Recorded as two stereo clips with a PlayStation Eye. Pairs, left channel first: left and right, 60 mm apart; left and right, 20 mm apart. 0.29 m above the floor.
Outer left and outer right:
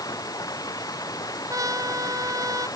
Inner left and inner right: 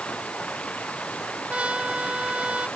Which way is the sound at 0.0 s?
85° left.